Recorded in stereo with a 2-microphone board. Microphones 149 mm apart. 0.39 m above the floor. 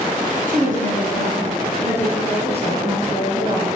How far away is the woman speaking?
About 3.5 m.